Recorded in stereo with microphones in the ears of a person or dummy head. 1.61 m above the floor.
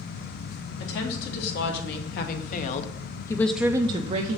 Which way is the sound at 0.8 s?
70° left (ahead or behind).